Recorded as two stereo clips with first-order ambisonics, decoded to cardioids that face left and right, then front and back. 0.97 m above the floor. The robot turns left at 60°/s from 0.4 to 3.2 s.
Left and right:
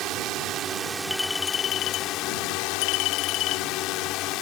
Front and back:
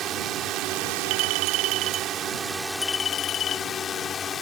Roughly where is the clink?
Behind.